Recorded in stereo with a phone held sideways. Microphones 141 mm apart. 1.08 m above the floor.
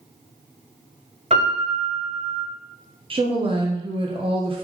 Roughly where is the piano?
Right.